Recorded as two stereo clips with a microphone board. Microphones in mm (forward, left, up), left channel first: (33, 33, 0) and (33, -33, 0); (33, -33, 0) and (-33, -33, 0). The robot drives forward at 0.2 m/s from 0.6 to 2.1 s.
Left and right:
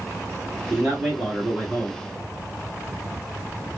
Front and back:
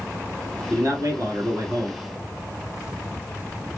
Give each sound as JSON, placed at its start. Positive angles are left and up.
{"t": 0.7, "sound": "a man speaking", "azimuth_deg": -160, "distance_m": 1.4}